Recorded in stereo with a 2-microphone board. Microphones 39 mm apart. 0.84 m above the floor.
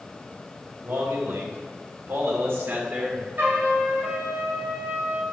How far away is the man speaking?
About 3.5 m.